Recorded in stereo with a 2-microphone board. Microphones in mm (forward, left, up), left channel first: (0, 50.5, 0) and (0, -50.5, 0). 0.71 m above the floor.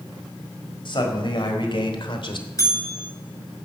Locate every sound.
0.8 s a man speaking: 55° left (ahead or behind), 4.5 m; by 2.5 s 60° left (ahead or behind), 2.5 m
2.6 s a bell: 35° left (ahead or behind), 10 m